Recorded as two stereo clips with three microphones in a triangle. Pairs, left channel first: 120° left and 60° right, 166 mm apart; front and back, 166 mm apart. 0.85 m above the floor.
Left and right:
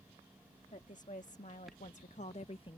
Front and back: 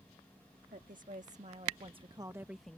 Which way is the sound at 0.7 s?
155° left.